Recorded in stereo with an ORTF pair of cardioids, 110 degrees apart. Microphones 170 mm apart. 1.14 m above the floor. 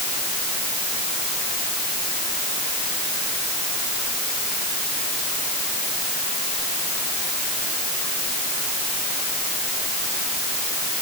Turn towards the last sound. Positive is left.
No sound to turn to.